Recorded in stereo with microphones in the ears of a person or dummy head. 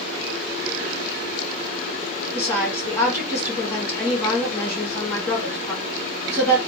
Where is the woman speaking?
10° left (ahead or behind), 1.4 m.